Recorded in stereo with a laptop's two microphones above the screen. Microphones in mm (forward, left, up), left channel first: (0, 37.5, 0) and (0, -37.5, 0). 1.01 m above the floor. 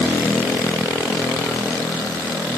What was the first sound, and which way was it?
Only background noise.